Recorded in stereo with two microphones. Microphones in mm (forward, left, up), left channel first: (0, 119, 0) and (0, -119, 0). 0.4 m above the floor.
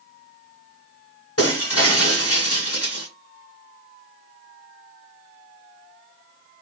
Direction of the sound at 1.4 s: 80° left.